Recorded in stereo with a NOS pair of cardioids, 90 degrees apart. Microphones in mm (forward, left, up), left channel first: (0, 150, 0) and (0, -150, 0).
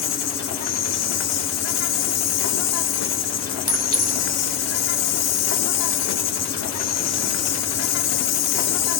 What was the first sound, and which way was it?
An insect, 65° left.